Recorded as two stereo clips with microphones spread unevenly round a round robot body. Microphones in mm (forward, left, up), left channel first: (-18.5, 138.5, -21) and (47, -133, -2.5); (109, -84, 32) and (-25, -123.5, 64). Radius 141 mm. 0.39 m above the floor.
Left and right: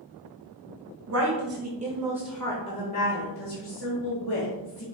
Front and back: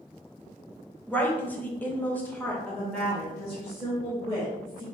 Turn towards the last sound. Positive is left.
turn(degrees=100)